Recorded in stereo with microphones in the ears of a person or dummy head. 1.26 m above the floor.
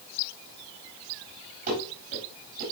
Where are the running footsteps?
50° right (ahead or behind), 6.5 m.